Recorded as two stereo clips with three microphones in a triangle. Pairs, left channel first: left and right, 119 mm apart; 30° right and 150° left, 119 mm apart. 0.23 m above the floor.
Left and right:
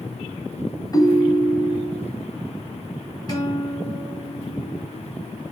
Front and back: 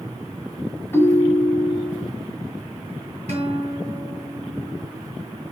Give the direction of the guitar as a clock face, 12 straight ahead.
7 o'clock.